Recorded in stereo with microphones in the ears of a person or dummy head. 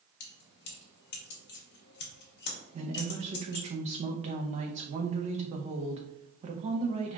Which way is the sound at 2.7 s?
35° right (ahead or behind).